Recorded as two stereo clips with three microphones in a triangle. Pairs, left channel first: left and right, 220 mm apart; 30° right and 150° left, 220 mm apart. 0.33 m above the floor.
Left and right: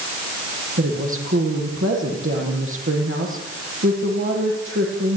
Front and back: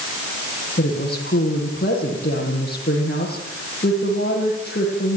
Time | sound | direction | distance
0.8 | a woman speaking | 70° right | 9.5 m